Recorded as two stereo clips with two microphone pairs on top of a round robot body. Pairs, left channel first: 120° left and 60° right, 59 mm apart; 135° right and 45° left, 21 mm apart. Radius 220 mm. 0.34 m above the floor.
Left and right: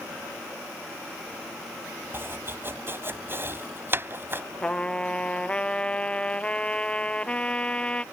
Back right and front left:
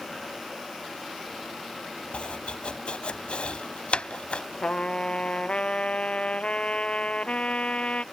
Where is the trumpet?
170° right.